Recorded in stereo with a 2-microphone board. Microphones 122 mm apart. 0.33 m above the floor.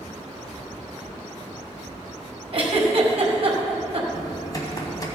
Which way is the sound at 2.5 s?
50° right (ahead or behind).